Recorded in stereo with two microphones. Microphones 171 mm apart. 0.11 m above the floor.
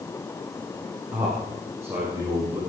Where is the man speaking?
10° right (ahead or behind), 8.5 m; by 2.6 s 20° right (ahead or behind), 9 m.